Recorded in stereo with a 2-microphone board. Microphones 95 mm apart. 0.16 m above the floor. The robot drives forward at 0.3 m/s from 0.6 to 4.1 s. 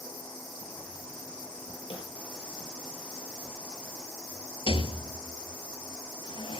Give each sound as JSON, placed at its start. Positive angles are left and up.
{"t": 1.9, "sound": "a snare drum", "side_deg": 70, "distance_m": 4.0}
{"t": 4.7, "sound": "a rattle", "side_deg": 70, "distance_m": 0.7}